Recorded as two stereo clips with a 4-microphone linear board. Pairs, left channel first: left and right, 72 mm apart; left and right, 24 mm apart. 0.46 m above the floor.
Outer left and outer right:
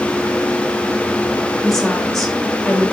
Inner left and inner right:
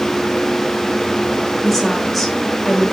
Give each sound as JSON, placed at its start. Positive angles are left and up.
{"t": 1.6, "sound": "a woman speaking", "side_deg": 5, "distance_m": 2.0}